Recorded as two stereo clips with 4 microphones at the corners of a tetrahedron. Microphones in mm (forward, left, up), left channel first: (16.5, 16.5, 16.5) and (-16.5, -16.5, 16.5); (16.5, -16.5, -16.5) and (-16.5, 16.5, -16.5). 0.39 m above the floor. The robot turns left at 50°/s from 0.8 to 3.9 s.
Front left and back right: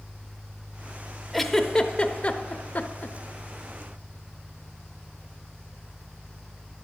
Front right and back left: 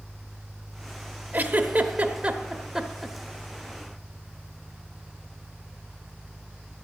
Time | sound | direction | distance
1.3 | a giggle | 130° left | 0.7 m